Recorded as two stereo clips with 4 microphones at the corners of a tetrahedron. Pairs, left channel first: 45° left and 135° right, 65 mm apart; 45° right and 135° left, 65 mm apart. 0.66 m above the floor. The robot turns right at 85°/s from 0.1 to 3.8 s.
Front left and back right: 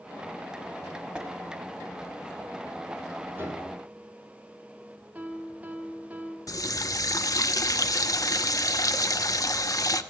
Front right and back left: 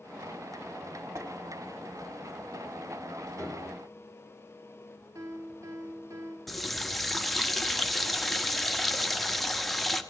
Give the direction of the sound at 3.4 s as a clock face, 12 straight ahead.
7 o'clock.